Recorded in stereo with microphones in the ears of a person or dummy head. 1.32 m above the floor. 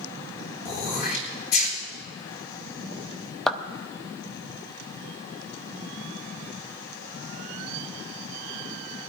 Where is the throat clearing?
50° left (ahead or behind), 4 m.